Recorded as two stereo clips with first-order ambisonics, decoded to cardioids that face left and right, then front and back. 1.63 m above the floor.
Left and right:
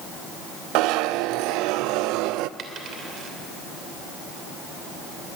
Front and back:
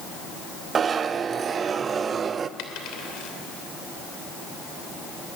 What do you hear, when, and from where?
0.8 s a zipper: 115° right, 0.6 m
2.6 s a dropped coin: 35° right, 3 m